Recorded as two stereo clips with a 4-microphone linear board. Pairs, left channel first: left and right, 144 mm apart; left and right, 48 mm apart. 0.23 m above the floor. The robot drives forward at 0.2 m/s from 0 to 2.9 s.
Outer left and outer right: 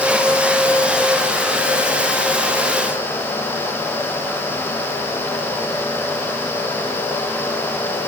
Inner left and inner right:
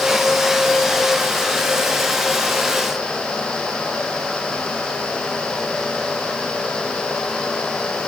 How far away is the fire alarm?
No fire alarm in this recording.